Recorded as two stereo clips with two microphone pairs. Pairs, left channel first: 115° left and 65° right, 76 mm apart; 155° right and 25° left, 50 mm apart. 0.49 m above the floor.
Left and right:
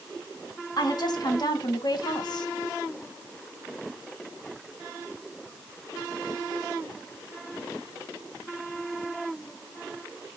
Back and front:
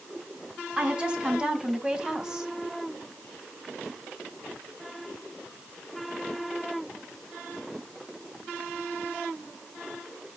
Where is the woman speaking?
95° left, 4 m; by 2.5 s 105° left, 2.5 m.